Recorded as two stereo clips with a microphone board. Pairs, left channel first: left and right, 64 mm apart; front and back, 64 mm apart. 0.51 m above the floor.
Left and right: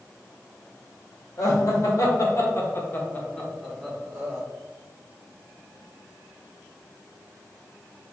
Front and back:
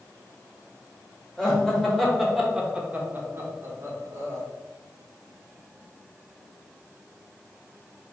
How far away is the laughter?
About 1.9 m.